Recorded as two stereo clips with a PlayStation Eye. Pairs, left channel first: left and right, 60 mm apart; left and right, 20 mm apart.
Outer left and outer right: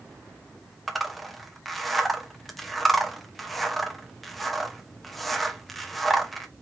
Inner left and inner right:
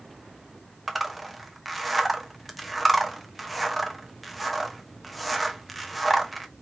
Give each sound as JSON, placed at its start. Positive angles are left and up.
{"t": 0.9, "sound": "a zipper", "side_deg": 0, "distance_m": 0.9}